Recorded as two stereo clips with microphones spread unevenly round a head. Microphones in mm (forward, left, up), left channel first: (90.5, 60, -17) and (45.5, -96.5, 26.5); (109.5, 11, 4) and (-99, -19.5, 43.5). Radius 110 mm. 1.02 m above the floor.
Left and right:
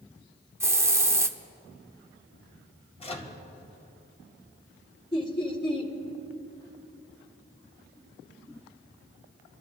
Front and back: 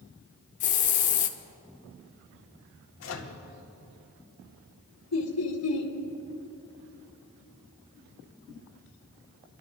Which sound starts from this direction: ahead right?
A hiss, at 0.6 s.